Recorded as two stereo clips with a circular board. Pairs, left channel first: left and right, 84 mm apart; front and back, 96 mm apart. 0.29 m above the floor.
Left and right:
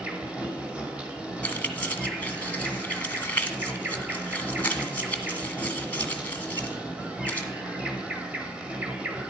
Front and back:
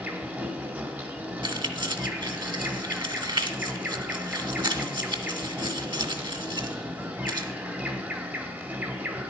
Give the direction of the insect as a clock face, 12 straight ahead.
5 o'clock.